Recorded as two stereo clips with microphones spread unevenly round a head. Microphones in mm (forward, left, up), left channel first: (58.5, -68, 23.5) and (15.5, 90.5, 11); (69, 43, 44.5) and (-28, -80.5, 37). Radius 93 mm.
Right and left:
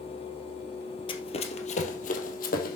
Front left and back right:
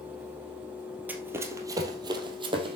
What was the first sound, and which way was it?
Running footsteps, 50° right.